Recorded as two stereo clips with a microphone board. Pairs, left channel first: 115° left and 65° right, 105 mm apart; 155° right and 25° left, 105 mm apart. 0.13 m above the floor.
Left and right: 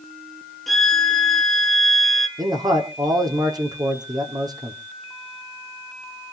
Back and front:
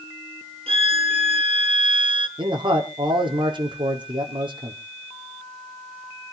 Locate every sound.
0.7 s a violin: 25° left, 1.8 m
2.4 s a man speaking: 15° right, 5 m